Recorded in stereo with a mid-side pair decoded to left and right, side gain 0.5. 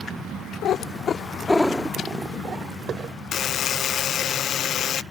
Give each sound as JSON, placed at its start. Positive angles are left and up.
{"t": 0.6, "sound": "a cat meowing", "azimuth_deg": 70}
{"t": 3.3, "sound": "a buzzer", "azimuth_deg": 55}